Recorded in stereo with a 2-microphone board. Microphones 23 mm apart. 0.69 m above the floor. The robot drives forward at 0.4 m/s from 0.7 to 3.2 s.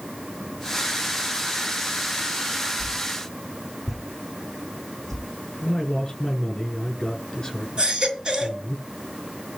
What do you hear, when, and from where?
2.8 s a whoosh: 5° left (ahead or behind), 3 m
5.6 s a man speaking: 30° left (ahead or behind), 8.5 m
7.8 s a baby crying: 40° right (ahead or behind), 3 m